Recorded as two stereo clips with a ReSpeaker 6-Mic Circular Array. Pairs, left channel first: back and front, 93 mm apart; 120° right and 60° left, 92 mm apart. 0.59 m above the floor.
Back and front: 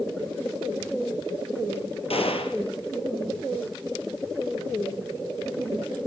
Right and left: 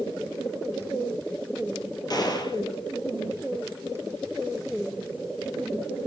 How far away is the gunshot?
About 2.5 m.